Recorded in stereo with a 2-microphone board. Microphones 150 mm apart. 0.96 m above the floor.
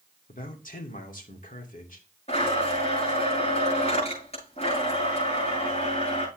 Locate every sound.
0.3 s a man speaking: 65° left (ahead or behind), 2 m
2.3 s a blender: 45° left (ahead or behind), 8.5 m